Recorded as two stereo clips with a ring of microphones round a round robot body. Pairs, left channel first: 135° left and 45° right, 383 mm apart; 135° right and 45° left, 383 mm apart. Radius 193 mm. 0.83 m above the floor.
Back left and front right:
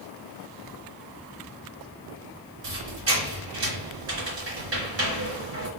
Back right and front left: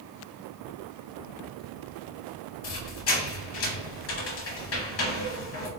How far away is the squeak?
About 0.9 m.